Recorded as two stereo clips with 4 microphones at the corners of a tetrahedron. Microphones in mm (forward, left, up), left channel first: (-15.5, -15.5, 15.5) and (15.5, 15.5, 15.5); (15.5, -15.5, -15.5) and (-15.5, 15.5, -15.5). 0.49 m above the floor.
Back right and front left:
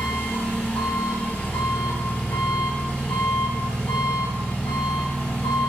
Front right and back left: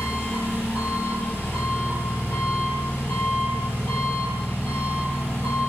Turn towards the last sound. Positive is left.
turn(degrees=-80)